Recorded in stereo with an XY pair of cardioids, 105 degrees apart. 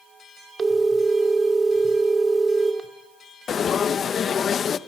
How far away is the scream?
I don't hear a scream.